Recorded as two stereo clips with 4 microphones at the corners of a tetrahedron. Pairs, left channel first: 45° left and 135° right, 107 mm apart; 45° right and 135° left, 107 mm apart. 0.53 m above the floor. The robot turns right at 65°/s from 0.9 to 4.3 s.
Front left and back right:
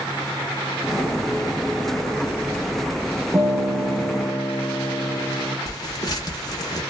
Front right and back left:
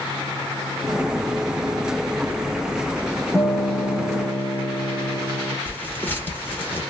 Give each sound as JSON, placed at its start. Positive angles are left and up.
{"t": 3.3, "sound": "a guitar", "azimuth_deg": -95, "distance_m": 0.9}
{"t": 5.7, "sound": "tearing paper", "azimuth_deg": 20, "distance_m": 0.9}